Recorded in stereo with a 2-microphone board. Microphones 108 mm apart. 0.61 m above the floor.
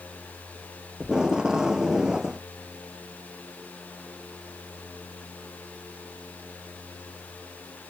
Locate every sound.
1.0 s tape being pulled: 5° right (ahead or behind)